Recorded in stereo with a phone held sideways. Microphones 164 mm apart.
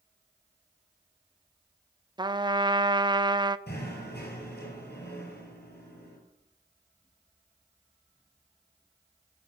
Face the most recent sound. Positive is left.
turn(degrees=80)